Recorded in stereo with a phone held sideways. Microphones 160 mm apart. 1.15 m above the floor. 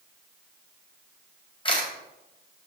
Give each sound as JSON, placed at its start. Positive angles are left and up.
{"t": 1.6, "sound": "a camera shutter", "side_deg": 30, "distance_m": 3.5}